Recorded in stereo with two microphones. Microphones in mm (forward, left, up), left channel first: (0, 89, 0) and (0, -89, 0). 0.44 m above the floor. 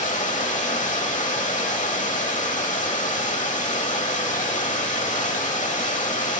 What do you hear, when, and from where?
0.0 s running water: 45° left (ahead or behind), 0.8 m